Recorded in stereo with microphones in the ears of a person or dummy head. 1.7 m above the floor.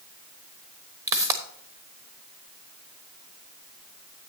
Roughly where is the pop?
Centre.